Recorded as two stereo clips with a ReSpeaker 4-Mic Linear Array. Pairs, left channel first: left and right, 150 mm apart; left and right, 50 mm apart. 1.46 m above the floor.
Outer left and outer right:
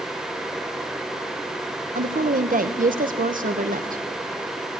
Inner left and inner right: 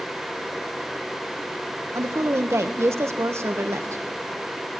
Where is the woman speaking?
65° right (ahead or behind), 1.2 m.